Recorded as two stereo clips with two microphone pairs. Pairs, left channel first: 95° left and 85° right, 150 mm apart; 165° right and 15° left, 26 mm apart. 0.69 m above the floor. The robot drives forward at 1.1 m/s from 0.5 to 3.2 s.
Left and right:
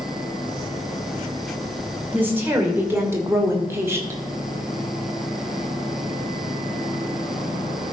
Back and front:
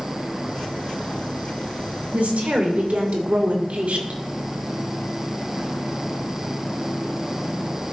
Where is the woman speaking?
10° right, 3 m; by 4.2 s 15° right, 1.8 m.